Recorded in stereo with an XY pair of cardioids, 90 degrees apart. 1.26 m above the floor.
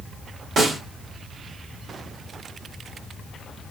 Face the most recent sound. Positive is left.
turn(degrees=-60)